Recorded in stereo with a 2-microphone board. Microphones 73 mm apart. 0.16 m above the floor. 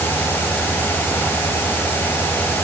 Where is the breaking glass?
No breaking glass in this recording.